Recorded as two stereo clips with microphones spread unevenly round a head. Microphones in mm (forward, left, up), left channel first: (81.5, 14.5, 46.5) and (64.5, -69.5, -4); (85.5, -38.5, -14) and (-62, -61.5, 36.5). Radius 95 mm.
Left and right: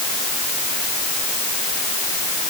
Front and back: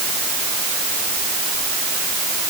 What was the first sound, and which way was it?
Only background noise.